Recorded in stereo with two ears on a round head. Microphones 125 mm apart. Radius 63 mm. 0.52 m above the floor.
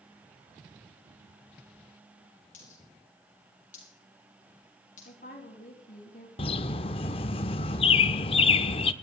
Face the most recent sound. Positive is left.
turn(degrees=40)  # may be behind; listen again after turning